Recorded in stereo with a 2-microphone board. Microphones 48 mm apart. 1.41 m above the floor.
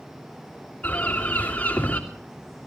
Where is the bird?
30° left (ahead or behind), 3 m.